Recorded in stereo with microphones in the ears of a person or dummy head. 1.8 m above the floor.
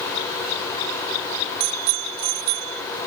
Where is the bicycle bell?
60° right (ahead or behind).